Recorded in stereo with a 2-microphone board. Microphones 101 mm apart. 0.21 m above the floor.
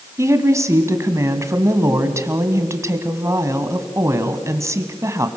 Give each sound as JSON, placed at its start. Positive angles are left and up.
{"t": 0.2, "sound": "a woman speaking", "side_deg": -30, "distance_m": 1.8}